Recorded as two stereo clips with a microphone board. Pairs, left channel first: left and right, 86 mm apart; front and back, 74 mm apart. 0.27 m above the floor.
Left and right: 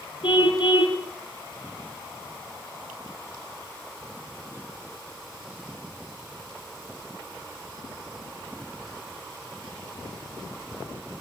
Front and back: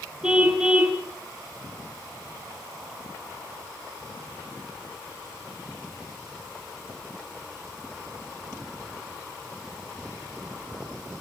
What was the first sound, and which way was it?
A car horn, 100° left.